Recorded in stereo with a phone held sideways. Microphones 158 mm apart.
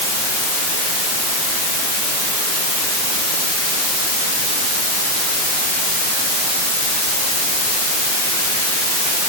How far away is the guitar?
I don't hear a guitar.